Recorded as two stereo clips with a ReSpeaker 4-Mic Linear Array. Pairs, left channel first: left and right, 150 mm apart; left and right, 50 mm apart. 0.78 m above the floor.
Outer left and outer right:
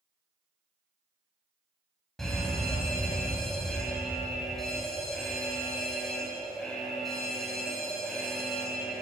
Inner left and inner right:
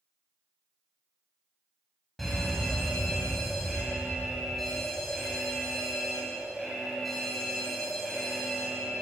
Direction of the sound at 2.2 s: Centre (ahead or behind).